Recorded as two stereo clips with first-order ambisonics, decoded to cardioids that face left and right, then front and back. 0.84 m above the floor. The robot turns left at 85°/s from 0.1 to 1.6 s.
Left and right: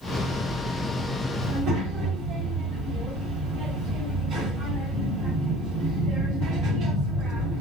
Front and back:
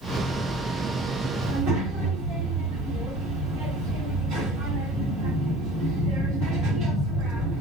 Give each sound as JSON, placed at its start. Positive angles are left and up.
{"t": 1.4, "sound": "a child speaking", "azimuth_deg": -130, "distance_m": 1.5}